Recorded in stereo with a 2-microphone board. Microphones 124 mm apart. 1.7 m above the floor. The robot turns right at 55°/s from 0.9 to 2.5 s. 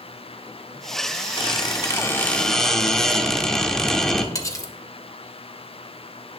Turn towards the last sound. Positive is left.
turn(degrees=25)  # may be behind; listen again after turning